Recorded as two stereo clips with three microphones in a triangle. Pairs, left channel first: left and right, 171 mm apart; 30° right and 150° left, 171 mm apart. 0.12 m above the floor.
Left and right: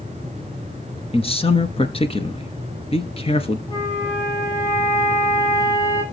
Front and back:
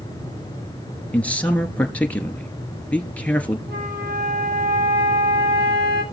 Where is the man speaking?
50° left, 1.5 m.